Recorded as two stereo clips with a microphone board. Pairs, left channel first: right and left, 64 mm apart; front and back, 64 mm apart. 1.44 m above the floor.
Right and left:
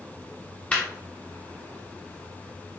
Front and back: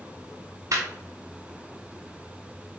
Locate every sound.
0.7 s laughter: 155° right, 0.6 m